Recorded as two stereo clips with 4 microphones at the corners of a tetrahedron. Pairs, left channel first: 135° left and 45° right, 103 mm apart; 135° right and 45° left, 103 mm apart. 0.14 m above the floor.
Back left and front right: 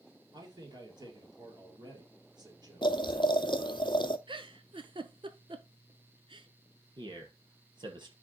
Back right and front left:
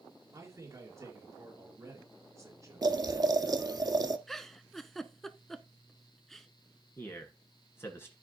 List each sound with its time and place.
0.3 s a man speaking: 10° right, 3 m
2.8 s boiling: 95° left, 0.6 m
4.3 s a giggle: 50° right, 0.6 m
7.0 s a man speaking: 75° right, 2 m